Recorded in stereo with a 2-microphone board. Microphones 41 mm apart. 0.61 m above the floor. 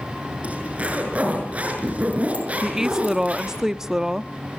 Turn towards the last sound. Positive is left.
turn(degrees=-15)  # may be behind; listen again after turning